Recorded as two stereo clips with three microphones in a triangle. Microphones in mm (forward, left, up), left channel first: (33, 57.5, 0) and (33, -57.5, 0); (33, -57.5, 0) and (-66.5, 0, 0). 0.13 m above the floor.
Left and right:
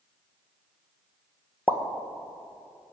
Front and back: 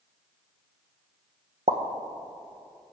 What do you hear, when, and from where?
1.7 s a pop: 170° left, 1.1 m